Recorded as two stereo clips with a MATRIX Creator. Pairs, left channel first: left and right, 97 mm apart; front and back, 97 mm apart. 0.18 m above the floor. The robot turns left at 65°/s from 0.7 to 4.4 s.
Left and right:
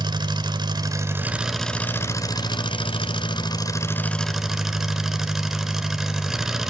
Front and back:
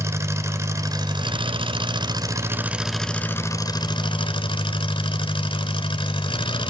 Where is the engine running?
125° right, 1.2 m; by 6.7 s 5° right, 1.2 m.